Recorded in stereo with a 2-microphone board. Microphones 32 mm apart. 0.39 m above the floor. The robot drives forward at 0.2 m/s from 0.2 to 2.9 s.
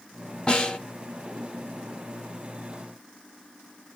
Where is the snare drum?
30° left (ahead or behind), 1.0 m.